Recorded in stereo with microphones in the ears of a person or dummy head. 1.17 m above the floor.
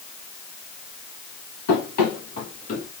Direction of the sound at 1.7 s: 60° left (ahead or behind).